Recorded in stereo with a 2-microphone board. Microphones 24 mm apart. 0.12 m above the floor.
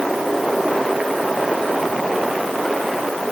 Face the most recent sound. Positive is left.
No sound to turn to.